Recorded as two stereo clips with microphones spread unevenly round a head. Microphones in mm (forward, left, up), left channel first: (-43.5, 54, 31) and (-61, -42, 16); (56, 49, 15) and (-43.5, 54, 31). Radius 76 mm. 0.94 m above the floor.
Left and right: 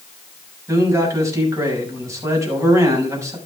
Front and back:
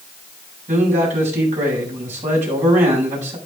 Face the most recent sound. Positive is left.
turn(degrees=-160)